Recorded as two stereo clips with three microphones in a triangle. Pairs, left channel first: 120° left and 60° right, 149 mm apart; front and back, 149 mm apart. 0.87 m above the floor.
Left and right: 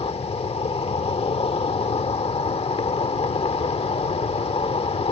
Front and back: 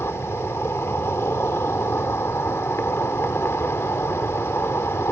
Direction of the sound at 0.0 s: 75° left.